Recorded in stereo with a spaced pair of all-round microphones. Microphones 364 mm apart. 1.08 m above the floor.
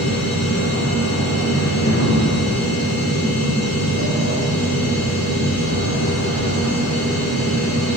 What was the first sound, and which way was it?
A machine running, 45° left (ahead or behind).